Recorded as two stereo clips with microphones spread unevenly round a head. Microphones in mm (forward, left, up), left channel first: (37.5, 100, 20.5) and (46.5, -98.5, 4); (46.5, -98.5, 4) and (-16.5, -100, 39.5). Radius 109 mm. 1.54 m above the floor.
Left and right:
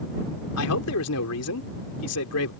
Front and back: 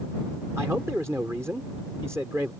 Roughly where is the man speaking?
Left.